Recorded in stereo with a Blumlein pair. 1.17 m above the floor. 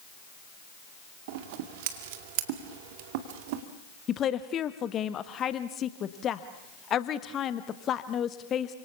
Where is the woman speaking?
25° left, 1.2 m.